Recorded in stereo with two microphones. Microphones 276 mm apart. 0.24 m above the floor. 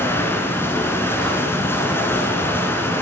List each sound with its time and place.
0.0 s running water: 10° left (ahead or behind), 1.2 m